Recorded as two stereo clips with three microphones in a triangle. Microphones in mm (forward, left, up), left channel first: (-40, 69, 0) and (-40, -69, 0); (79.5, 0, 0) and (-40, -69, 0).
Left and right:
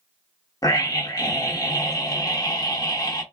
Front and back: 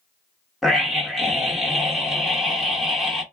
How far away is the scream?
About 0.8 m.